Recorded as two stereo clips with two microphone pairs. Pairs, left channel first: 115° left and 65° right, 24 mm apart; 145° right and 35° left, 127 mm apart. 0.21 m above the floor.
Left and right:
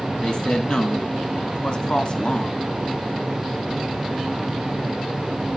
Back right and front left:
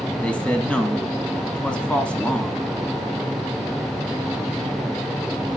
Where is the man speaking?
140° left, 1.4 m.